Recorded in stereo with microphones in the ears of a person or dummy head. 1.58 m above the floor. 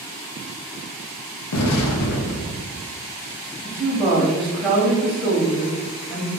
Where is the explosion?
80° left, 0.5 m.